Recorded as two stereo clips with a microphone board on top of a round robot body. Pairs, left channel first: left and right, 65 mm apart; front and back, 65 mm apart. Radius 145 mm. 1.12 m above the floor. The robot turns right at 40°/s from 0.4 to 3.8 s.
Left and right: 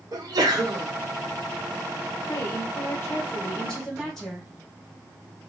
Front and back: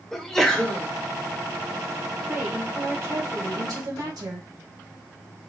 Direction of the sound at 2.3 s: 110° left.